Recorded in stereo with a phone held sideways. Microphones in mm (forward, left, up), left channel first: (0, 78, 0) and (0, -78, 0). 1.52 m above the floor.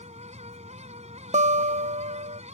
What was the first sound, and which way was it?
A fan, 45° right (ahead or behind).